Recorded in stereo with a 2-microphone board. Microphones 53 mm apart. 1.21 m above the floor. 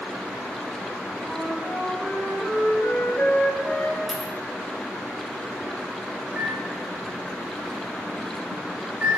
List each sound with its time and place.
1.2 s a flute: 55° left (ahead or behind), 1.0 m
4.1 s a dropped coin: 5° left (ahead or behind), 0.6 m
6.3 s a microwave: 25° right (ahead or behind), 1.5 m